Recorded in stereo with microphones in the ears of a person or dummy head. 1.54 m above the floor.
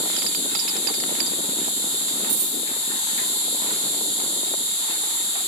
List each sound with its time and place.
0.0 s an insect: 40° left (ahead or behind), 1.9 m
2.3 s a dropped coin: 35° right (ahead or behind), 1.2 m